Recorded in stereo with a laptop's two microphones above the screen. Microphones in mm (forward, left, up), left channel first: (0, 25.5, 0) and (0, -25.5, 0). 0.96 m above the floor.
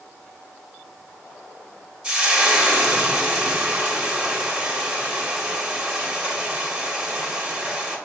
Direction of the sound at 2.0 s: 20° right (ahead or behind).